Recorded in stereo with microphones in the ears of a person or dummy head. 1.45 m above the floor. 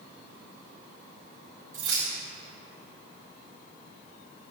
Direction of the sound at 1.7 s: 15° right (ahead or behind).